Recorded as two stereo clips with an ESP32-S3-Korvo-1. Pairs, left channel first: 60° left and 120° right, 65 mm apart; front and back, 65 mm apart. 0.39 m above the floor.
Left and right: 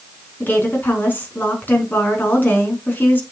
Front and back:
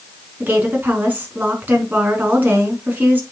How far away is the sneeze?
I don't hear a sneeze.